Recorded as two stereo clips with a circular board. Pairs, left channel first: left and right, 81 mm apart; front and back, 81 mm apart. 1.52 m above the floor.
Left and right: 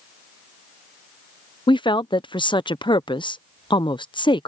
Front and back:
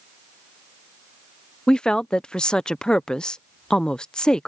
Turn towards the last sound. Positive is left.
turn(degrees=80)